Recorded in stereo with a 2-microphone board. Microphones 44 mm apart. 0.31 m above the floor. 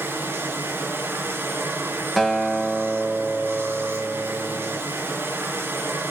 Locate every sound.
0.0 s running water: 50° right (ahead or behind), 3 m
2.2 s a guitar: 5° left (ahead or behind), 0.8 m